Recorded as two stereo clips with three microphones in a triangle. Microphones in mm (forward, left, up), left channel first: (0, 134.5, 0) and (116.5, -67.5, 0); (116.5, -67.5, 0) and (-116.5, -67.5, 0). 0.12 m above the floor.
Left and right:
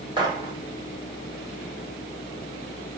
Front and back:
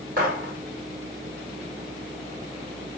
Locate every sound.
0.2 s a gunshot: 130° right, 4 m